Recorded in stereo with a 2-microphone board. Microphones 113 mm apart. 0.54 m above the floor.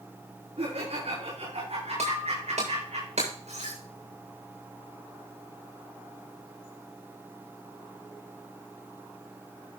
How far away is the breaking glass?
About 7.5 m.